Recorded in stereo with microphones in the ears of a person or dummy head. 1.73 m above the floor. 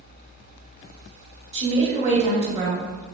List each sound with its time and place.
1.5 s a woman speaking: 30° right (ahead or behind), 1.0 m